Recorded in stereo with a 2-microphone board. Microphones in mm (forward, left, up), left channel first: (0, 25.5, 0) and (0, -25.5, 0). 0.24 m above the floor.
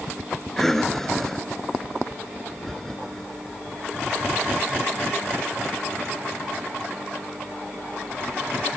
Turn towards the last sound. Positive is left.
turn(degrees=5)  # may be behind; listen again after turning